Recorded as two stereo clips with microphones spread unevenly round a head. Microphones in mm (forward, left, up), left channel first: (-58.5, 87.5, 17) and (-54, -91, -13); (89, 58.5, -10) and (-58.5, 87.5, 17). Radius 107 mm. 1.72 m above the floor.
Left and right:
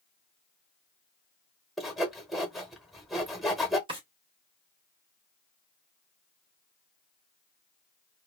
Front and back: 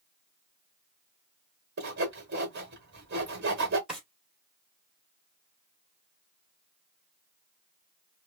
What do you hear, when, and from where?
1.8 s sawing: straight behind, 1.1 m
3.9 s a drawer: 140° right, 1.4 m